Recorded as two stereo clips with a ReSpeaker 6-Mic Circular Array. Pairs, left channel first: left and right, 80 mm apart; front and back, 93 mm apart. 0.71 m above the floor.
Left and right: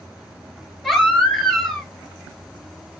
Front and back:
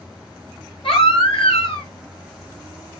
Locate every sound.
0.8 s a baby crying: 5° left, 6 m